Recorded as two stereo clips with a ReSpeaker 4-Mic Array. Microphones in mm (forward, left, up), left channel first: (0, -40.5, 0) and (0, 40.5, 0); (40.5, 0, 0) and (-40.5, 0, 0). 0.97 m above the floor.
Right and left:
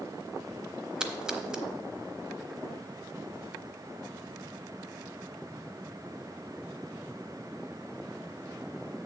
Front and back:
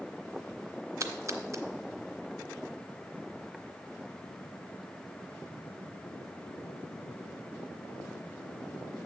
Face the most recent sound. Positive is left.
turn(degrees=165)